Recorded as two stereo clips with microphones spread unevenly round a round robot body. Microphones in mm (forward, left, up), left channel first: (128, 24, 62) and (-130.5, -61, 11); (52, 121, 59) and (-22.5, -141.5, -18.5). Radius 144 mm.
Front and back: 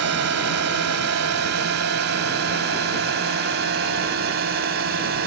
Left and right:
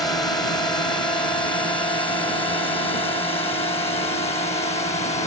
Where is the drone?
155° left; by 5.3 s 145° left.